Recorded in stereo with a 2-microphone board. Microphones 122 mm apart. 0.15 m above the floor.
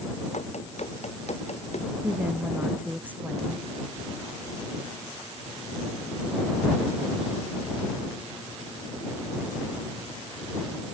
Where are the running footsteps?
65° left (ahead or behind).